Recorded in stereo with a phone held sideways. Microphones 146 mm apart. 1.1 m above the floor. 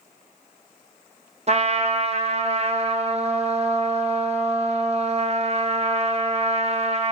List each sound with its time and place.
1.5 s a trumpet: 50° right (ahead or behind), 0.7 m